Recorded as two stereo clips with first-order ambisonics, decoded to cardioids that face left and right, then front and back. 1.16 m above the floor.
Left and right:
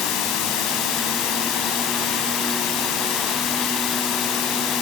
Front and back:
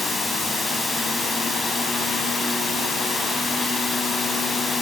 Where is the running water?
80° left, 4.5 m.